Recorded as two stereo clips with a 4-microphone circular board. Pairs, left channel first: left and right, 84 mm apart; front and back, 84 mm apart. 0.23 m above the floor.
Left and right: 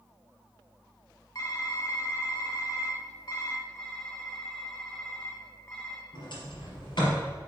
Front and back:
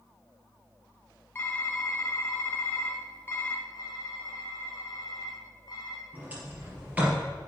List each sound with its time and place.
1.4 s typing on a keyboard: 60° left, 1.4 m
3.8 s typing on a keyboard: 30° left, 3 m
6.1 s a sliding door: 110° left, 4 m